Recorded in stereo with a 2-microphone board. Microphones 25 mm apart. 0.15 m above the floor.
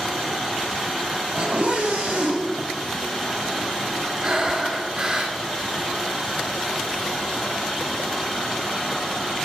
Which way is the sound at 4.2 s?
35° right (ahead or behind).